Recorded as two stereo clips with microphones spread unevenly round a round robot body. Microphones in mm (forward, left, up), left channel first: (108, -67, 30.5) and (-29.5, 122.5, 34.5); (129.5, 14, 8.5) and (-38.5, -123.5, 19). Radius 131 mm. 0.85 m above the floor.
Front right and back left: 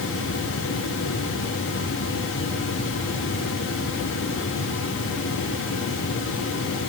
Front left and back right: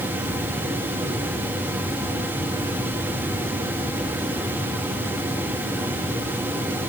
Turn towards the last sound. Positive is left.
No sound to turn to.